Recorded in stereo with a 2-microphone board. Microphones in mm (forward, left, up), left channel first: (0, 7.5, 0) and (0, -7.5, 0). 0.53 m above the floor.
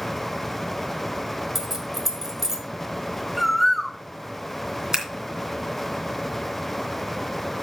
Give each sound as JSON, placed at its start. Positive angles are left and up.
{"t": 1.6, "sound": "keys jangling", "side_deg": -25, "distance_m": 1.9}
{"t": 3.4, "sound": "a bird", "side_deg": -5, "distance_m": 1.0}
{"t": 4.9, "sound": "scissors", "side_deg": -30, "distance_m": 2.5}